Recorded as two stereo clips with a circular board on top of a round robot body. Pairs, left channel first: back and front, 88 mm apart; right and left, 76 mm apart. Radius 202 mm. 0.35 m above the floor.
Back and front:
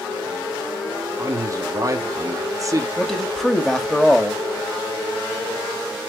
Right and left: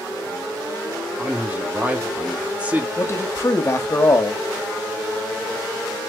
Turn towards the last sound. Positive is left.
turn(degrees=-95)